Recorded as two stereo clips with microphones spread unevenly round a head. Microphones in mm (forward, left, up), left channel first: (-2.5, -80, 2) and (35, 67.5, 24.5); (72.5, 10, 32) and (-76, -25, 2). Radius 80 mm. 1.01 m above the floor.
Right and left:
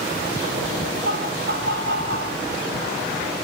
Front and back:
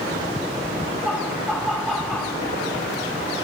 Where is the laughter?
100° left, 7 m.